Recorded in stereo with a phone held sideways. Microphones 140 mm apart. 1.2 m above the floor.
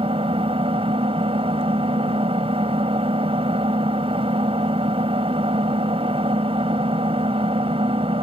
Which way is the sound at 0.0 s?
45° right (ahead or behind).